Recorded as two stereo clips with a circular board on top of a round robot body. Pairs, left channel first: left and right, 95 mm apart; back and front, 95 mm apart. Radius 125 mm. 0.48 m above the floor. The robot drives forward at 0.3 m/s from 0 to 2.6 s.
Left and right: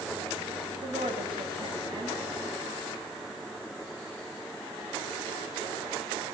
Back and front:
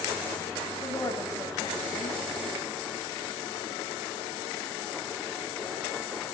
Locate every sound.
0.8 s a woman speaking: 120° right, 5.5 m; by 2.2 s 125° right, 6 m